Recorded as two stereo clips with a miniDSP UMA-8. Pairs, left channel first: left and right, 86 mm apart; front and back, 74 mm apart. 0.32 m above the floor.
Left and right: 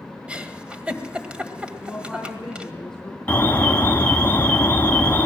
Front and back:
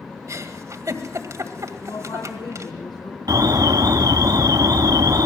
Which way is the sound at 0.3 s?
160° right.